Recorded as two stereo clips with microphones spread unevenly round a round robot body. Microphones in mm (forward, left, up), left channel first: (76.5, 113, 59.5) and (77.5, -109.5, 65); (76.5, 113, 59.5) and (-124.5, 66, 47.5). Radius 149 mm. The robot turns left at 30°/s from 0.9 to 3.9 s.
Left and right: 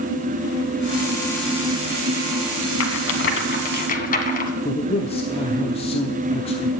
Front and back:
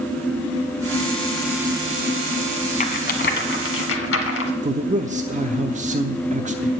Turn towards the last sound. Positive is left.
turn(degrees=150)